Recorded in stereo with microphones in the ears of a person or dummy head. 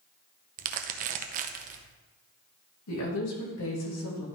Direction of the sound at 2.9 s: 80° left.